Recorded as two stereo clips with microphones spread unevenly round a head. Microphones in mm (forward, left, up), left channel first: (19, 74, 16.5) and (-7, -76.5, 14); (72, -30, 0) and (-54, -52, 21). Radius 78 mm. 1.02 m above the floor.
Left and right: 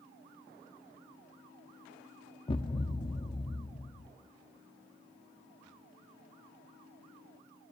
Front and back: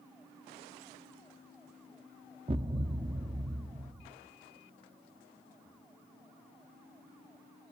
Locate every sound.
2.5 s a thud: 140° left, 0.7 m